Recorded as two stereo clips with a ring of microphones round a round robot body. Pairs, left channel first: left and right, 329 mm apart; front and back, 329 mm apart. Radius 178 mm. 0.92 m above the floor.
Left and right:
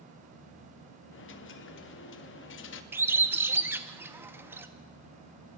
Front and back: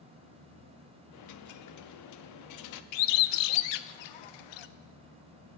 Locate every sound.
1.1 s a dropped coin: 35° left, 0.6 m
2.9 s a bird: 5° right, 0.5 m